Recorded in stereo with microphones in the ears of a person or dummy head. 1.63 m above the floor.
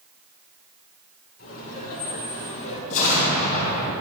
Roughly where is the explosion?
Left.